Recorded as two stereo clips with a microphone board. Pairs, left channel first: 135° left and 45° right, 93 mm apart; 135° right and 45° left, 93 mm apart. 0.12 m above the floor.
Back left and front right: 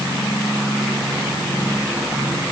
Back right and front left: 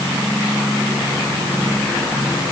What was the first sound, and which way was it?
Only background noise.